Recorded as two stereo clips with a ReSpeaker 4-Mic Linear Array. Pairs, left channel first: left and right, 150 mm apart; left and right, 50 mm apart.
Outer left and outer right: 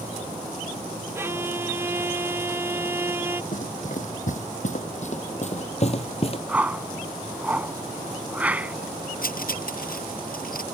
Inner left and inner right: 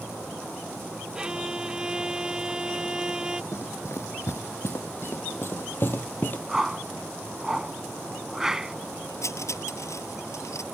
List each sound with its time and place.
1.1 s a violin: 15° right (ahead or behind)
3.5 s running footsteps: 60° left (ahead or behind); by 6.4 s 40° left (ahead or behind)
6.5 s a whoosh: 10° right (ahead or behind)
9.2 s cutlery clinking: 70° left (ahead or behind)